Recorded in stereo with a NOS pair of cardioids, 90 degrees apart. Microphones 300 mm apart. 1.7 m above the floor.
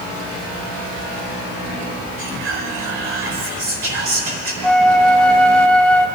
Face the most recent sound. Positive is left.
turn(degrees=5)